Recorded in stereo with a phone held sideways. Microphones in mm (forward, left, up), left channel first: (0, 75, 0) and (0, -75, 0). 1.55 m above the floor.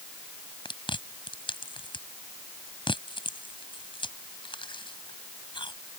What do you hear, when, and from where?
0.7 s chewing: 35° left (ahead or behind)